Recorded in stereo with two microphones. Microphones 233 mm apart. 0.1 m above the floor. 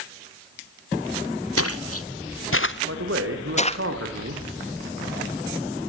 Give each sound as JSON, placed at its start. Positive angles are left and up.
{"t": 1.6, "sound": "footsteps", "side_deg": 80, "distance_m": 0.9}
{"t": 2.9, "sound": "a man speaking", "side_deg": -65, "distance_m": 4.5}